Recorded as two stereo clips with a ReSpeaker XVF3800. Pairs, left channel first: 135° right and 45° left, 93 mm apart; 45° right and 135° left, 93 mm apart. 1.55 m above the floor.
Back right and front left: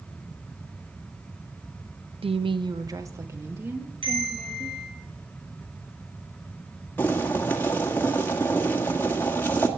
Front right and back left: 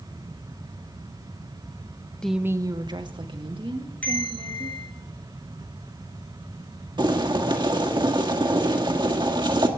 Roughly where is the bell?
Ahead left.